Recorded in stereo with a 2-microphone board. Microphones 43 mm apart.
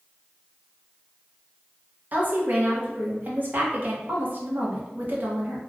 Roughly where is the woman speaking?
Right.